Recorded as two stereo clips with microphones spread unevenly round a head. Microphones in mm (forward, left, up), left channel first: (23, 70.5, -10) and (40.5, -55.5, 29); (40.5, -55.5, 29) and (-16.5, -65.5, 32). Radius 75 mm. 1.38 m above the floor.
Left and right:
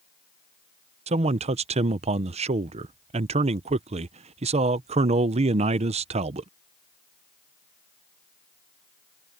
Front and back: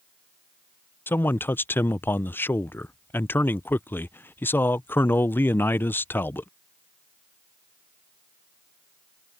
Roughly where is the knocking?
I don't hear knocking.